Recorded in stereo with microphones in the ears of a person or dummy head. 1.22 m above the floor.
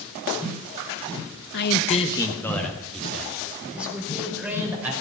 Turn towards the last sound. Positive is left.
turn(degrees=-10)  # may be behind; listen again after turning